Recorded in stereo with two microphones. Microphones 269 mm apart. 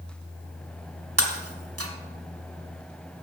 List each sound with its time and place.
1.2 s breaking glass: 60° right (ahead or behind), 1.3 m